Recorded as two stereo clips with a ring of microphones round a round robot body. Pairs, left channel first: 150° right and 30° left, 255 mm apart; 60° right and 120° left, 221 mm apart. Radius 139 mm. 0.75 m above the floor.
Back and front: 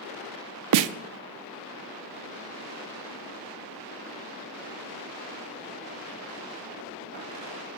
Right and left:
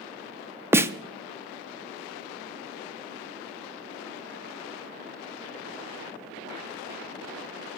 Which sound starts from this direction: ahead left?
A snare drum, at 0.7 s.